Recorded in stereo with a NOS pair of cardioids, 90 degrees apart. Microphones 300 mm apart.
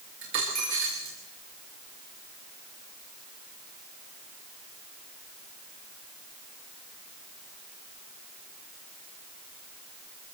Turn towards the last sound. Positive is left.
turn(degrees=-70)